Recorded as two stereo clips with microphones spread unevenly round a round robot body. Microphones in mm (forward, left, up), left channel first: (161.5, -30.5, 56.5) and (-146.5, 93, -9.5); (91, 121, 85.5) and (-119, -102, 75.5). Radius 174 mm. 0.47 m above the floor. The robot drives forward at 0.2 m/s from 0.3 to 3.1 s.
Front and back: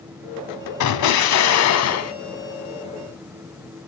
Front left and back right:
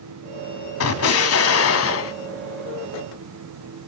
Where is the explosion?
15° left, 1.0 m; by 2.1 s 20° left, 0.8 m.